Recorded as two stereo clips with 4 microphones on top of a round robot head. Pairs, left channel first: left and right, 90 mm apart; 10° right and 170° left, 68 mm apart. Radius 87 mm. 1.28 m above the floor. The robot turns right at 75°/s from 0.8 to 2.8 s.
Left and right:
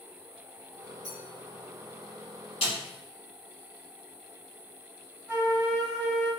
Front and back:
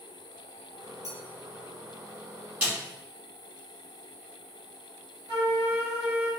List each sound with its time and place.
1.0 s a clink: 40° left, 0.9 m; by 1.2 s 50° left, 0.9 m
2.6 s a snare drum: 110° left, 1.6 m; by 2.8 s 120° left, 1.6 m
5.3 s a flute: 165° right, 1.4 m